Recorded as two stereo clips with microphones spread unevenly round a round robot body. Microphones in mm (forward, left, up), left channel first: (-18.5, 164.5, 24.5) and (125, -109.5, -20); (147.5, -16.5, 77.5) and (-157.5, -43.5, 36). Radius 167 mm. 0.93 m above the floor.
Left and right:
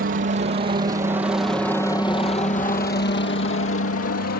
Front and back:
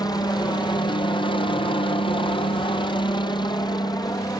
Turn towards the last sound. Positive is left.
turn(degrees=85)